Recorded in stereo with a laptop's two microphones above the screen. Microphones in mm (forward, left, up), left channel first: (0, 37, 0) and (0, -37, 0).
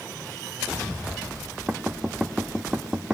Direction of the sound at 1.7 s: 10° right (ahead or behind).